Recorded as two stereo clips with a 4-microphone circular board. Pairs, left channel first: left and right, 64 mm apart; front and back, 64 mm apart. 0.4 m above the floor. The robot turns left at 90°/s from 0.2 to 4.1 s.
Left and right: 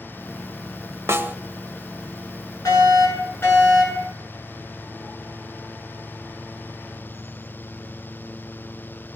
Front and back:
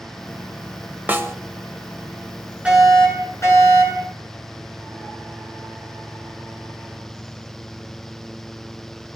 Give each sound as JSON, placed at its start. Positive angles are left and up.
{"t": 1.1, "sound": "a snare drum", "azimuth_deg": -125, "distance_m": 1.2}
{"t": 2.6, "sound": "a fire alarm", "azimuth_deg": 110, "distance_m": 9.5}